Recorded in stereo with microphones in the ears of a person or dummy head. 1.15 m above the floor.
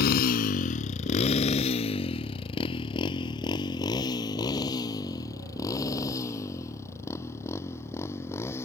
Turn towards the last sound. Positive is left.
turn(degrees=15)  # may be behind; listen again after turning